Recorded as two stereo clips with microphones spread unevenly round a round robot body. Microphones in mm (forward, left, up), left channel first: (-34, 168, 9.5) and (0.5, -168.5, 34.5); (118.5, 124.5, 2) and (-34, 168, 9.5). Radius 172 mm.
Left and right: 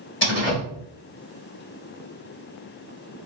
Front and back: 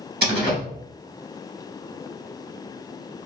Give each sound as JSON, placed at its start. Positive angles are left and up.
{"t": 0.2, "sound": "a door slam", "azimuth_deg": 150, "distance_m": 2.0}